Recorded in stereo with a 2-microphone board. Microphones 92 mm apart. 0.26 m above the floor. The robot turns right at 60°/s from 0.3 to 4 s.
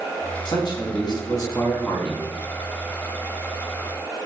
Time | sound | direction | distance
0.5 | a man speaking | 70° left | 1.9 m